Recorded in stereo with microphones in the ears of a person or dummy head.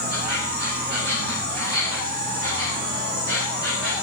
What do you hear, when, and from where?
0.0 s an insect: 75° right (ahead or behind), 5 m